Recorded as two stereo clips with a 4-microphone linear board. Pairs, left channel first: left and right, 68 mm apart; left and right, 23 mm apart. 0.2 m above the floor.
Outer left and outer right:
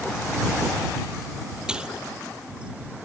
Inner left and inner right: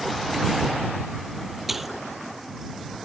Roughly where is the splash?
Centre.